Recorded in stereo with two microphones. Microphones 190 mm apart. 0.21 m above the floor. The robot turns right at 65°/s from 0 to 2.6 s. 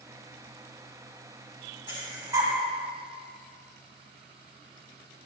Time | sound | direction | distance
1.9 | breathing | 25° right (ahead or behind) | 1.5 m